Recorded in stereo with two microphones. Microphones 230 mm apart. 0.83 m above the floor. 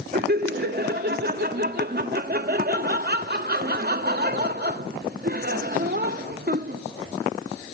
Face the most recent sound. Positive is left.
turn(degrees=-45)  # may be behind; listen again after turning